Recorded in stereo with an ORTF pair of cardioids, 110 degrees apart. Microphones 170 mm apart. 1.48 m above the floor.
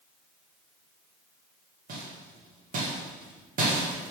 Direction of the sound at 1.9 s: 55° right.